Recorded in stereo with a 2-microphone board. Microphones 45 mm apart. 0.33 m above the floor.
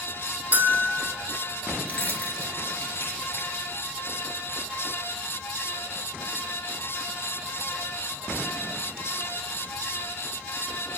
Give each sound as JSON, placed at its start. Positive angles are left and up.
{"t": 0.5, "sound": "a bell", "side_deg": -40, "distance_m": 1.4}
{"t": 1.9, "sound": "keys jangling", "side_deg": 35, "distance_m": 3.5}